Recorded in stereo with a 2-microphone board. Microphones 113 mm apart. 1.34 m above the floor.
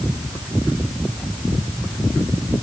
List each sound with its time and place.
Only background noise.